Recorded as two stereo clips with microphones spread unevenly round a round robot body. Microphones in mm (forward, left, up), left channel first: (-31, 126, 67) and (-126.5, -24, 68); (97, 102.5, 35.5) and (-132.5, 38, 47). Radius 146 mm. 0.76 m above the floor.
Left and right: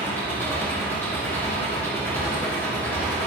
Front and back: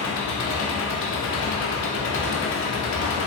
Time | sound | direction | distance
0.0 | an engine running | 25° right | 1.4 m